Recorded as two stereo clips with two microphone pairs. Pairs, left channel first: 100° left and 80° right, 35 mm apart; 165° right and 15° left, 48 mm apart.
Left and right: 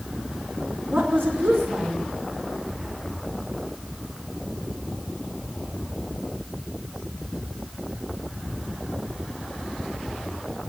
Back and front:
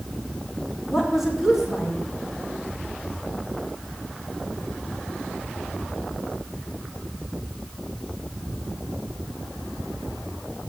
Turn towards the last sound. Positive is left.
turn(degrees=-75)